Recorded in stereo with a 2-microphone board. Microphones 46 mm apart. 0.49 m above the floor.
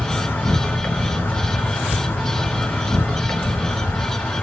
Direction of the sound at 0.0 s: 50° left (ahead or behind).